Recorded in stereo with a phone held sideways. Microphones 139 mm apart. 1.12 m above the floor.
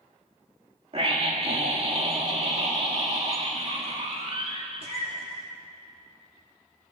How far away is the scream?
About 1.8 m.